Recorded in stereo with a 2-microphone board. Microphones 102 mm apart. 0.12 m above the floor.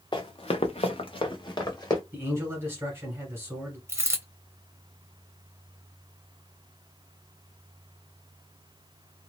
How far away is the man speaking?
About 1.6 m.